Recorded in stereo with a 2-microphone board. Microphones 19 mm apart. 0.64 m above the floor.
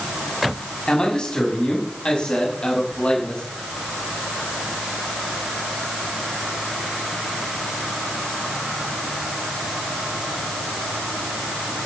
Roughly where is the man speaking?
Left.